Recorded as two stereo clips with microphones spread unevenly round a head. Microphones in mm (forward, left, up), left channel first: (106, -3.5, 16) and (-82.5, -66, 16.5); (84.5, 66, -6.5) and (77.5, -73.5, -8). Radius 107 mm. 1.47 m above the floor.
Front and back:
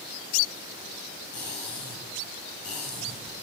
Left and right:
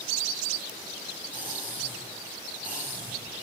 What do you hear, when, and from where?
1.3 s cutlery clinking: 15° right, 8.5 m